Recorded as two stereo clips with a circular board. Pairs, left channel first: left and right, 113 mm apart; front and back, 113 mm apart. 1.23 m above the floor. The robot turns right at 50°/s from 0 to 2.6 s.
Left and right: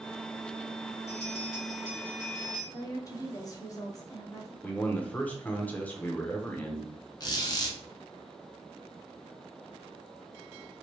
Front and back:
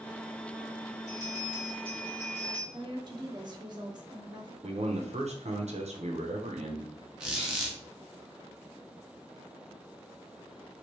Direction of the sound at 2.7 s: 140° left.